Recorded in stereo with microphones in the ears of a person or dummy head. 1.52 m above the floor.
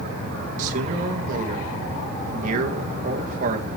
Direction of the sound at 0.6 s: 35° right (ahead or behind).